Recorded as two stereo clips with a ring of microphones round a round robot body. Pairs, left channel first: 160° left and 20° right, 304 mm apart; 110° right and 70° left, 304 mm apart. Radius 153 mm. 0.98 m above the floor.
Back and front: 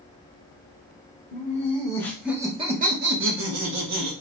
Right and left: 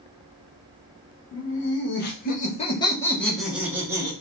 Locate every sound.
1.3 s laughter: 145° right, 0.9 m; by 4.1 s 10° right, 1.1 m